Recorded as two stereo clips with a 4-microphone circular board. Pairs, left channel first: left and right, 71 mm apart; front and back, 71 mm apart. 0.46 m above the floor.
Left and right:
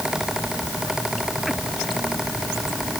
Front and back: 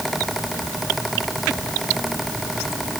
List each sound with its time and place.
Only background noise.